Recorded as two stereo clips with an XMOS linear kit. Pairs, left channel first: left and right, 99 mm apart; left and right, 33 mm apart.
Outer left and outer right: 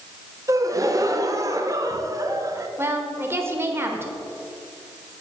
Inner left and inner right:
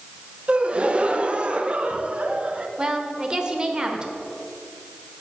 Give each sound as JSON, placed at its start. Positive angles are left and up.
{"t": 0.5, "sound": "a gasp", "side_deg": -35, "distance_m": 0.6}
{"t": 2.8, "sound": "a woman speaking", "side_deg": -25, "distance_m": 1.2}